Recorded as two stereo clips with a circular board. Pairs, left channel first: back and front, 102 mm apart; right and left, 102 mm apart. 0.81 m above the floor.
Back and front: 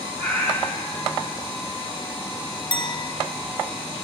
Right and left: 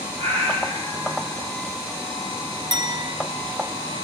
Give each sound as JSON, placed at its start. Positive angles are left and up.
{"t": 0.2, "sound": "a cat meowing", "azimuth_deg": 105, "distance_m": 2.5}
{"t": 2.7, "sound": "a clink", "azimuth_deg": 140, "distance_m": 0.5}